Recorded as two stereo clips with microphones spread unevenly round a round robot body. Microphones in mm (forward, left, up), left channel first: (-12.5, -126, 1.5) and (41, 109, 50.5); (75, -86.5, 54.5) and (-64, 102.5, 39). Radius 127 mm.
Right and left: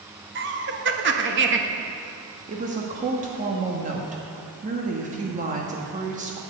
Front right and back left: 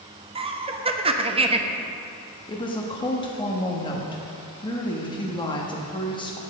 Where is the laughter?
90° left, 1.2 m.